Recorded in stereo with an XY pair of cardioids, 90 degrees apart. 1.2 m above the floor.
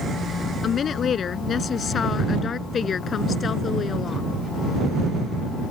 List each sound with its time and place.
0.6 s a woman speaking: 60° left; by 4.3 s 50° left